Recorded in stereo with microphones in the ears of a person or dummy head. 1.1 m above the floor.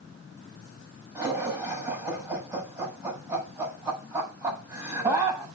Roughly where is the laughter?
Right.